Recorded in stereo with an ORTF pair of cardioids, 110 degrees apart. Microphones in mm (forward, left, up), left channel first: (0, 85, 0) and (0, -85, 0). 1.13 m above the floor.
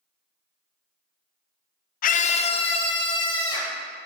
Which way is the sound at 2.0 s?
55° left.